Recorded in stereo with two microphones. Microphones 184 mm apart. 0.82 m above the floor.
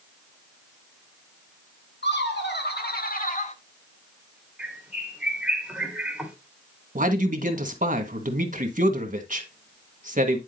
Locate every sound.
2.0 s laughter: 70° left (ahead or behind), 2.5 m; by 3.5 s 35° left (ahead or behind), 1.2 m
4.6 s a bird: 5° right (ahead or behind), 2 m
7.0 s a man speaking: 45° right (ahead or behind), 1.3 m